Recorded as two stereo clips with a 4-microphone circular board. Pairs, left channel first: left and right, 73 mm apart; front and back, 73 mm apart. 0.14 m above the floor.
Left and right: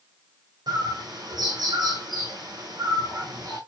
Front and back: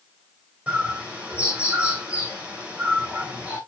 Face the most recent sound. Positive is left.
turn(degrees=-110)